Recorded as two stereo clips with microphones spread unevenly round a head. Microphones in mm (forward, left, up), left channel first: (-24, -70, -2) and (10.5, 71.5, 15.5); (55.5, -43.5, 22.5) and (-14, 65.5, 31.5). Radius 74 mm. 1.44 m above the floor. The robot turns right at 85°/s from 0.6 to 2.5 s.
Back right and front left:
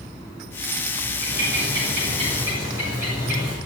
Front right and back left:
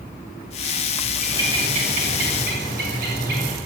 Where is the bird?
45° left, 7 m; by 3.6 s 150° left, 7 m.